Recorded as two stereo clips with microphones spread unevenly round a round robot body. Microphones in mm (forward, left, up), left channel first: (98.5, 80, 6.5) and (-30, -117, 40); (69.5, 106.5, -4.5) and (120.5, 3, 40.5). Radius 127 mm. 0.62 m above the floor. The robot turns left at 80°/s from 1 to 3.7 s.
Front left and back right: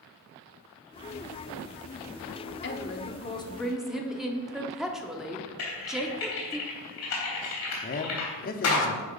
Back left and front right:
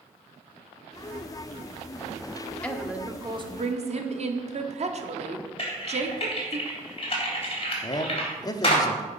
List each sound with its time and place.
2.6 s a woman speaking: 55° left, 1.3 m; by 6.6 s 30° right, 1.3 m
5.6 s typing on a keyboard: 80° left, 3 m
7.8 s a man speaking: 95° left, 0.9 m